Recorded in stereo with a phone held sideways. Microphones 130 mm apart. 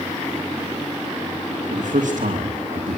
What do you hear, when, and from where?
1.7 s a man speaking: 80° right, 2.5 m